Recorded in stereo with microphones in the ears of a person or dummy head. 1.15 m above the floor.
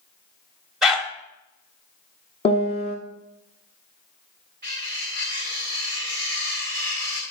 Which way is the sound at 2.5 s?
30° left (ahead or behind).